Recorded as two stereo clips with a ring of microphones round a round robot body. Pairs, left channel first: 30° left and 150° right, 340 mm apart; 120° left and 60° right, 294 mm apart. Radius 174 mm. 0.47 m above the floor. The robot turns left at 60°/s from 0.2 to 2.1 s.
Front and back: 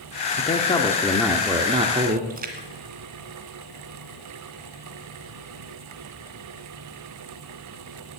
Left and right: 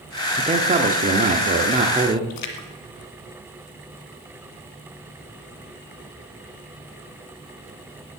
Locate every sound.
0.4 s a man speaking: 10° right, 1.0 m; by 2.2 s 115° right, 1.0 m
2.3 s a splash: 145° left, 1.7 m